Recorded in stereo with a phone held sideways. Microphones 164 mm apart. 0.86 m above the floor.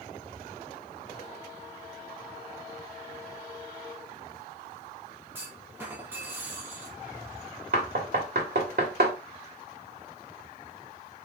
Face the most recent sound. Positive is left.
turn(degrees=-85)